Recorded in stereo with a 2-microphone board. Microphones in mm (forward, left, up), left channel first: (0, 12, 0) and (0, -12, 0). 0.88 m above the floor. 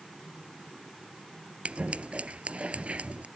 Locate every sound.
1.6 s scissors: 60° right (ahead or behind)